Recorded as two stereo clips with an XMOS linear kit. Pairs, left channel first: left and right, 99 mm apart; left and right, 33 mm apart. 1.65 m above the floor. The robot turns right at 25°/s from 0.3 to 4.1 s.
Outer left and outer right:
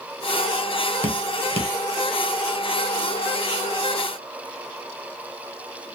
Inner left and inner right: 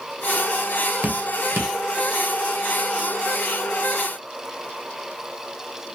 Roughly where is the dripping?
Right.